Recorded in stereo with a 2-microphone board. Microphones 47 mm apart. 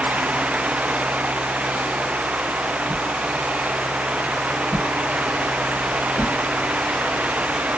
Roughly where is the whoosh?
Right.